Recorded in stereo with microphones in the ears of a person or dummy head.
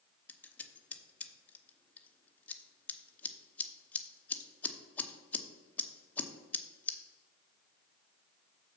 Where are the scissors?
10° left (ahead or behind), 0.8 m.